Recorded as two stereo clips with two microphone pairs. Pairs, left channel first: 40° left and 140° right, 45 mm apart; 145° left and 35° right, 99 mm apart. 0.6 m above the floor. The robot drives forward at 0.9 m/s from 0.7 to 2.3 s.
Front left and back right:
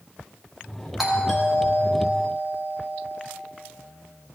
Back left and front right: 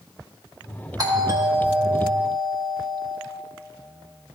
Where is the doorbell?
55° right, 1.3 m; by 3.2 s 135° right, 1.4 m.